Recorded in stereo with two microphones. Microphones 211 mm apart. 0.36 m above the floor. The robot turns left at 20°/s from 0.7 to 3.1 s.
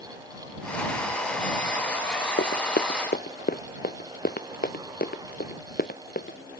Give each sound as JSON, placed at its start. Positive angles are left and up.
{"t": 2.4, "sound": "running footsteps", "side_deg": 60}